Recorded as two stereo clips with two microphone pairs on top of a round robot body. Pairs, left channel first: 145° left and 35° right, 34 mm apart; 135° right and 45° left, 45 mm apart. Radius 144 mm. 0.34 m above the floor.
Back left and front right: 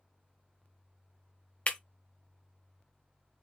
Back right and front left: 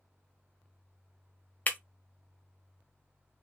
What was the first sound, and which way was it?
Breaking glass, straight behind.